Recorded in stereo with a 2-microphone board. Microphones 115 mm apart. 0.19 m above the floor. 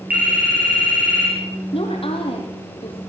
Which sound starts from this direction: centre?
A phone ringing, at 0.1 s.